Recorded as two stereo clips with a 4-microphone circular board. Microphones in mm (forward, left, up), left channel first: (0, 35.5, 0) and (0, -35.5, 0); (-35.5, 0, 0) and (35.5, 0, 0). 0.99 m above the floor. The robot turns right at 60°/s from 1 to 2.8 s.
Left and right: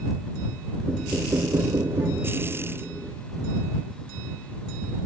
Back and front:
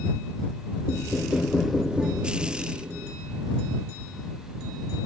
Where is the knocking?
140° right; by 3.2 s 30° right.